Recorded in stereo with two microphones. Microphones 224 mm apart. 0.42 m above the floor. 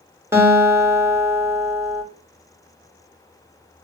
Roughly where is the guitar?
Centre.